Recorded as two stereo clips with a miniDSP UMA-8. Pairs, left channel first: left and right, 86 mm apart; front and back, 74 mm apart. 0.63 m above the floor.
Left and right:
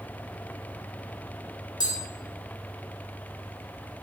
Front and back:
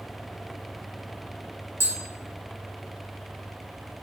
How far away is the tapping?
About 0.7 m.